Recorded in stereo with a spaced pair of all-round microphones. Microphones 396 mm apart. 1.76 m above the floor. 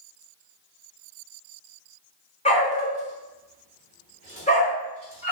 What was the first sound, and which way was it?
A dog barking, 15° left (ahead or behind).